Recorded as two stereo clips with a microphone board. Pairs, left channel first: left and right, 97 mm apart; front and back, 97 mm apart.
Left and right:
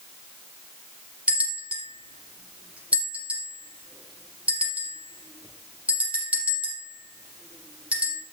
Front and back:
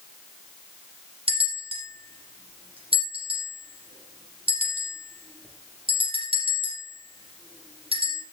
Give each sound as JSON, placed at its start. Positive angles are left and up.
{"t": 1.3, "sound": "a bell", "azimuth_deg": -165, "distance_m": 6.0}